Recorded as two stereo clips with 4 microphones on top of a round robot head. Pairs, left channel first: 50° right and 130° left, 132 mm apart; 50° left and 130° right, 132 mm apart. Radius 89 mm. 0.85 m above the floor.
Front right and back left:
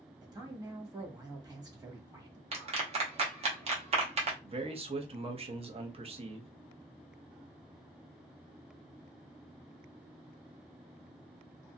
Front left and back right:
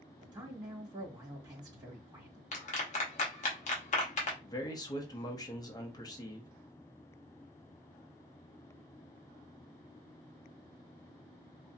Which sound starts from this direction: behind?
A man speaking, at 0.2 s.